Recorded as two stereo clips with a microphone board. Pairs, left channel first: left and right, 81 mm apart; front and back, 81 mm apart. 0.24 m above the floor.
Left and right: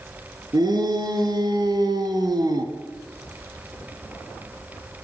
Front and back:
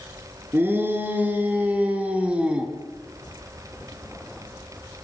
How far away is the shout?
About 4 m.